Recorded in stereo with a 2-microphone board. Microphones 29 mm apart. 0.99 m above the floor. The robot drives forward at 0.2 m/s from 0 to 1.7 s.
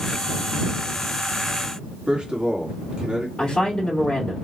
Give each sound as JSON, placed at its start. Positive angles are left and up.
{"t": 2.1, "sound": "a man speaking", "side_deg": -35, "distance_m": 1.6}
{"t": 3.4, "sound": "a woman speaking", "side_deg": 35, "distance_m": 2.5}